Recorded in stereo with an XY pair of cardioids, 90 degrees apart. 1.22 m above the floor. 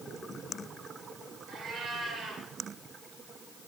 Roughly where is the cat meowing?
Ahead right.